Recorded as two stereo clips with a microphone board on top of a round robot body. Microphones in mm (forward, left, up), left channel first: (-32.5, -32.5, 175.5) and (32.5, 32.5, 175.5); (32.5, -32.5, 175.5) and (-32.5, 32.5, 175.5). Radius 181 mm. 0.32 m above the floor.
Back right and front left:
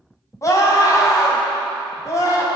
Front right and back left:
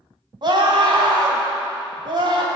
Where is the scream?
170° left, 3 m.